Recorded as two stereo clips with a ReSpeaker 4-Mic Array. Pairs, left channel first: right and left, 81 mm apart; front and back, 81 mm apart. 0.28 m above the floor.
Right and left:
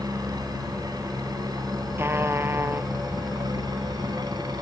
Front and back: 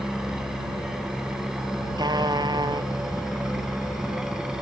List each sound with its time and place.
0.0 s a helicopter: 95° left
2.0 s a trumpet: 150° left